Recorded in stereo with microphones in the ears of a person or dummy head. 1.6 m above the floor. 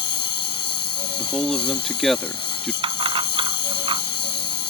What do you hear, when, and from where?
0.0 s a lawn mower: 25° left (ahead or behind)
1.2 s a man speaking: centre (ahead or behind)
2.8 s keys jangling: 30° right (ahead or behind)